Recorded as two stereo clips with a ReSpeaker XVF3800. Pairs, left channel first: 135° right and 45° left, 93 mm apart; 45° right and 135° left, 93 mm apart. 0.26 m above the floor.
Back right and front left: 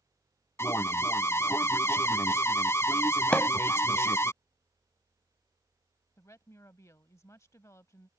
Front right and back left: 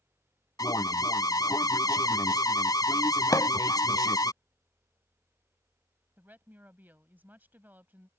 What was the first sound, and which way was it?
An alarm, 80° right.